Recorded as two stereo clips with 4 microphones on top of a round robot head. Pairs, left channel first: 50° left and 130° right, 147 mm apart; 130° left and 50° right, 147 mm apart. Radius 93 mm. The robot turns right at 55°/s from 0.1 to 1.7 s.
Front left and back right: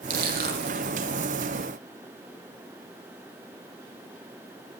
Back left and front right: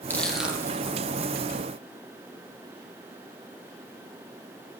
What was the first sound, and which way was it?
Crushing, 155° right.